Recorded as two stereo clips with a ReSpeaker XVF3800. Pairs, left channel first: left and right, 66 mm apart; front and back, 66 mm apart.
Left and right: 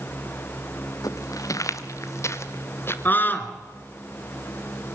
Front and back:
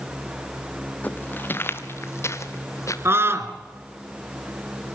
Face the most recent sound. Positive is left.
turn(degrees=140)